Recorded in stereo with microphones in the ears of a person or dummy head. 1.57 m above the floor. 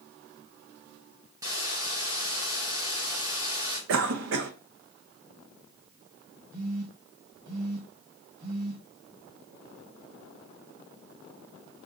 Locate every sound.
1.4 s a hiss: 15° right (ahead or behind), 1.8 m
3.9 s a cough: 70° right (ahead or behind), 0.9 m
6.5 s a phone buzzing: 45° right (ahead or behind), 1.9 m